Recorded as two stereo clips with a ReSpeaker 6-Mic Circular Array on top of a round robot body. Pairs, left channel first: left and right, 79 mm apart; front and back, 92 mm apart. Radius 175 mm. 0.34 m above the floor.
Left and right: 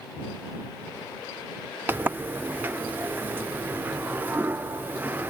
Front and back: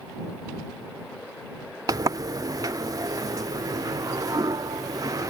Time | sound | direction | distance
1.9 | a sliding door | 150° right | ?